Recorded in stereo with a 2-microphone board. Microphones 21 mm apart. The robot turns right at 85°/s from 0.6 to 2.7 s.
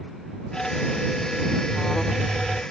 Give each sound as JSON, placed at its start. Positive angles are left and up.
{"t": 1.7, "sound": "an alarm", "azimuth_deg": 35}